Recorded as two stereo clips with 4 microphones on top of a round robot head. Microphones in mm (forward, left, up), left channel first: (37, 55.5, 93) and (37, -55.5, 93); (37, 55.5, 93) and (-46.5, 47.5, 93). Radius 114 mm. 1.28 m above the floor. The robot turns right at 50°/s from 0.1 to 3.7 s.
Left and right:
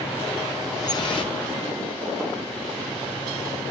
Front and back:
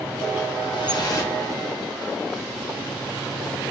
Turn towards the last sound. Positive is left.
turn(degrees=175)